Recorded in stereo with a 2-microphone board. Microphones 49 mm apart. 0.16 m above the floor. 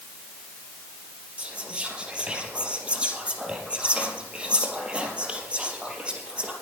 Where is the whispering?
25° right (ahead or behind), 3.5 m.